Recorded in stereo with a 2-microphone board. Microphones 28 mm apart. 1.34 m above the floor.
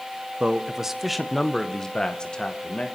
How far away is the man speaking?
About 0.9 m.